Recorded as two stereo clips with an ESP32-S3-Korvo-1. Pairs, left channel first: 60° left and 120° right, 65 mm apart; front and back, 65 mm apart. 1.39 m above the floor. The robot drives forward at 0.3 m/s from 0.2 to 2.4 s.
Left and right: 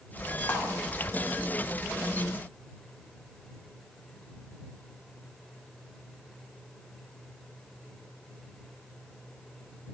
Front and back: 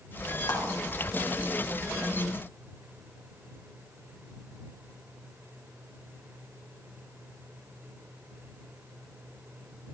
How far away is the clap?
About 3.5 m.